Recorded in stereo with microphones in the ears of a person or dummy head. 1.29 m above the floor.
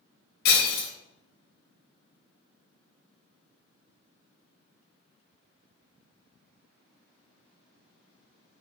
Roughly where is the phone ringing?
I don't hear a phone ringing.